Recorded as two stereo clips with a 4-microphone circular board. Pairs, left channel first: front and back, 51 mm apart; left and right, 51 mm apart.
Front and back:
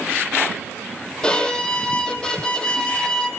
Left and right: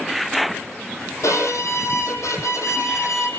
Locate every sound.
1.2 s a violin: 75° left, 4 m